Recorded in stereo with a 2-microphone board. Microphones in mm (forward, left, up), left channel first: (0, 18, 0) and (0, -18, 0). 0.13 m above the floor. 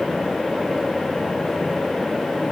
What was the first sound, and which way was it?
Only background noise.